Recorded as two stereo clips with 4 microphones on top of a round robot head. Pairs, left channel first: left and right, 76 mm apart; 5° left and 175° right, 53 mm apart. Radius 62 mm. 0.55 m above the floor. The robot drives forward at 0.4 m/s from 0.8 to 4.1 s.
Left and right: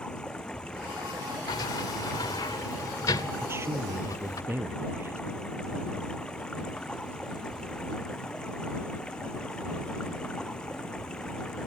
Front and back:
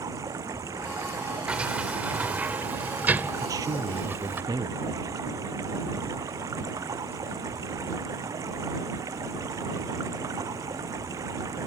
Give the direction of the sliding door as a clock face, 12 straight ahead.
8 o'clock.